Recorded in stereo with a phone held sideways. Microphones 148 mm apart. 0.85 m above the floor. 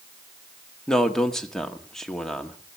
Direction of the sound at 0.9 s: 5° left (ahead or behind).